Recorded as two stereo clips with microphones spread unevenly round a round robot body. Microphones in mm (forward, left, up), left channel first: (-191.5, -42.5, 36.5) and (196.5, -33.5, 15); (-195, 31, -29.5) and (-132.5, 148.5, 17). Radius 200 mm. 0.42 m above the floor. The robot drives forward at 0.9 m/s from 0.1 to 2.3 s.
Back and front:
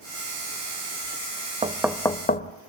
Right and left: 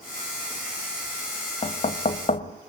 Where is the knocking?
70° right, 1.1 m; by 2.5 s 110° right, 1.1 m.